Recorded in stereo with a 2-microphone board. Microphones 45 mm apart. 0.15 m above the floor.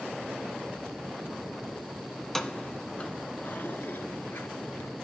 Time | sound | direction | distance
2.2 | keys jangling | 5° left (ahead or behind) | 0.9 m